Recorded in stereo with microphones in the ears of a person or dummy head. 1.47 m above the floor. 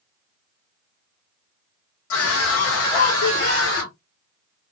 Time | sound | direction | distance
2.1 | a scream | 75° left (ahead or behind) | 1.2 m